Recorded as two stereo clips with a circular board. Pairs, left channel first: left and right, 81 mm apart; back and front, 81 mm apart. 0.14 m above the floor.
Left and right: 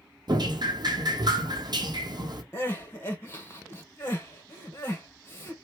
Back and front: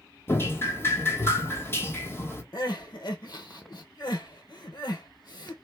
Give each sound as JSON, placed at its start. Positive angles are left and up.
{"t": 0.3, "sound": "dripping", "azimuth_deg": -120, "distance_m": 0.9}
{"t": 2.5, "sound": "crying", "azimuth_deg": 150, "distance_m": 1.1}